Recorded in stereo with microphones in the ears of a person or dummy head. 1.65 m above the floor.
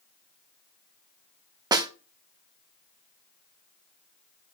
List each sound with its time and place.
1.7 s a snare drum: 20° right (ahead or behind), 0.8 m